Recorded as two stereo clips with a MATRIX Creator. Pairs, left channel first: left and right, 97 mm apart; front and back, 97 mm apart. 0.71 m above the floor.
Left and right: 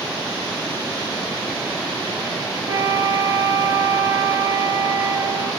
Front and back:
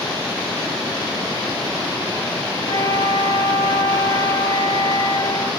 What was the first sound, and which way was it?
A flute, 40° right.